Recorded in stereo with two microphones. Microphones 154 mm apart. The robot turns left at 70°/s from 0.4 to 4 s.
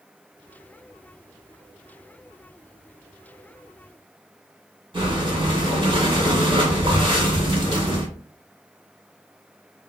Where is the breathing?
35° right (ahead or behind), 2 m.